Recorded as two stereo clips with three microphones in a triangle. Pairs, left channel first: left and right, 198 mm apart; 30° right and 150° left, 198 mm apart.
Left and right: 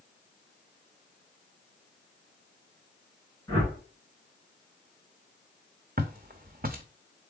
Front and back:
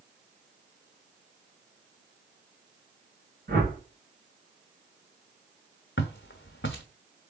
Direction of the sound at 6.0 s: 45° right.